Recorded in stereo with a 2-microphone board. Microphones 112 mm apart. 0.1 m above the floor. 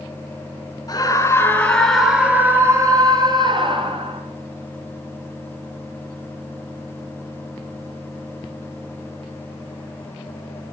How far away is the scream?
About 1.6 m.